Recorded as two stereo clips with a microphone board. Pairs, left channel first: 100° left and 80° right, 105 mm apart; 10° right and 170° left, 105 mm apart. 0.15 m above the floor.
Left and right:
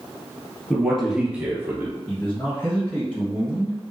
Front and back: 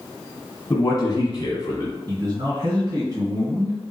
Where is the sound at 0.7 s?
20° left, 1.5 m; by 1.9 s 45° right, 1.6 m.